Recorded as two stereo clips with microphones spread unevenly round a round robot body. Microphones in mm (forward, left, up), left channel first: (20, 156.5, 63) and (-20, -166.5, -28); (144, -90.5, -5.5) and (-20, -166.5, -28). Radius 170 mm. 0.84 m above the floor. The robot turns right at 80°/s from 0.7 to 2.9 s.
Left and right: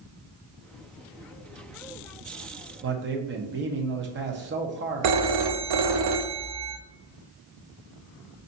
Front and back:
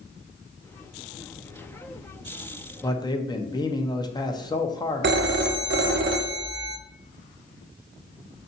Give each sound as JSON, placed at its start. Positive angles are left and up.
{"t": 2.8, "sound": "a man speaking", "azimuth_deg": -55, "distance_m": 0.9}
{"t": 5.0, "sound": "a phone ringing", "azimuth_deg": -125, "distance_m": 0.6}